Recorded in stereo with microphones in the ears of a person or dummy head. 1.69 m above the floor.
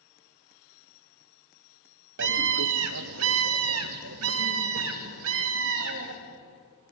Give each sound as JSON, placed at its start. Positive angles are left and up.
{"t": 2.2, "sound": "a scream", "side_deg": -70, "distance_m": 1.3}